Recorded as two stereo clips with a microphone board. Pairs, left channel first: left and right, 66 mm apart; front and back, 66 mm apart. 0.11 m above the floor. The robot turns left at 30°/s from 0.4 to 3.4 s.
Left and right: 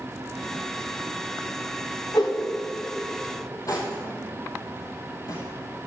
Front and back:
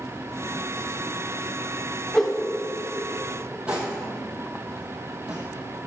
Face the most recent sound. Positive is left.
turn(degrees=110)